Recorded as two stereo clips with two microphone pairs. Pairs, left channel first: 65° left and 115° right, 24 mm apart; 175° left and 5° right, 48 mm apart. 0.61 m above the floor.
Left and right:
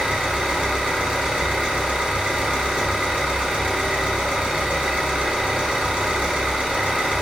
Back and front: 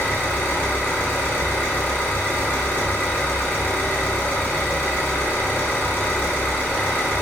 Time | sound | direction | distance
0.0 | an engine running | 145° right | 0.9 m